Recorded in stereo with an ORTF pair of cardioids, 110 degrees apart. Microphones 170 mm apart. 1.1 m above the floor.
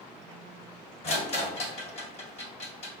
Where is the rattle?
40° left, 1.6 m.